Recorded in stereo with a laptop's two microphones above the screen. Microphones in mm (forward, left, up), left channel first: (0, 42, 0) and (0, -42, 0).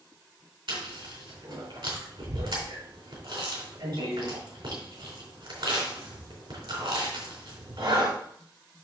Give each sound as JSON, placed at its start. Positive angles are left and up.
{"t": 0.7, "sound": "chewing", "side_deg": -80, "distance_m": 3.5}